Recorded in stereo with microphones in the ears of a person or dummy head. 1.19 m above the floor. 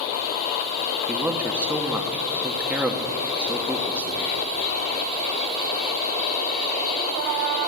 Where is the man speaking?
15° right (ahead or behind), 0.8 m.